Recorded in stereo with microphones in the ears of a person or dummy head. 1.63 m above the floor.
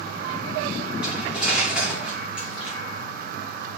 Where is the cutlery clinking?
5° right (ahead or behind), 2.5 m.